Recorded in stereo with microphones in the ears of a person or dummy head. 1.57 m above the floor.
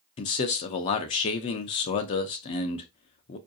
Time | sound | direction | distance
0.2 | a man speaking | 35° left (ahead or behind) | 0.5 m